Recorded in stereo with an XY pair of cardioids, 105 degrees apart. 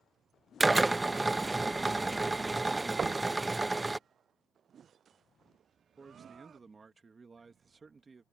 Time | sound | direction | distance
0.6 | a drill | 15° right | ?
3.0 | knocking | 40° right | ?
6.0 | a man speaking | 30° right | ?